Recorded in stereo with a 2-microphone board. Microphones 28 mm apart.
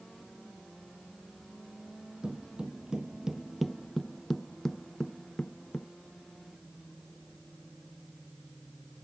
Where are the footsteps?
35° right (ahead or behind); by 5.9 s 20° left (ahead or behind).